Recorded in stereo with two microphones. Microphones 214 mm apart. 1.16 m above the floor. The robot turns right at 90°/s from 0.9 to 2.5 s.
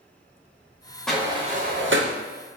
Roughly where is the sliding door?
Centre.